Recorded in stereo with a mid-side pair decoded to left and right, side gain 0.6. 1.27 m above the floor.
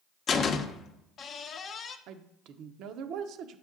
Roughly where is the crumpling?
No crumpling in this recording.